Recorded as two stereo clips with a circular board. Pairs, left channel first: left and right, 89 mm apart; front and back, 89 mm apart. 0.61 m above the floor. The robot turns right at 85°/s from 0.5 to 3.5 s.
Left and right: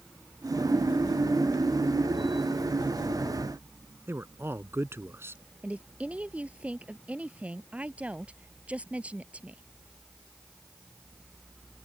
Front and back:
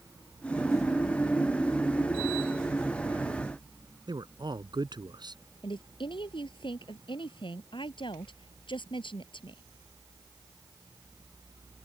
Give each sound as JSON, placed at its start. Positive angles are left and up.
{"t": 4.1, "sound": "a man speaking", "azimuth_deg": -150}
{"t": 5.6, "sound": "a woman speaking", "azimuth_deg": -15}